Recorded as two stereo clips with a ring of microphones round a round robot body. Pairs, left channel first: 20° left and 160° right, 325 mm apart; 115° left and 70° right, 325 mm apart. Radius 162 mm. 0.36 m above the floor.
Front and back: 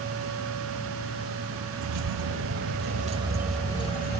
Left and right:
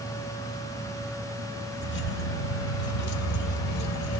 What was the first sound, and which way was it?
Keys jangling, 170° left.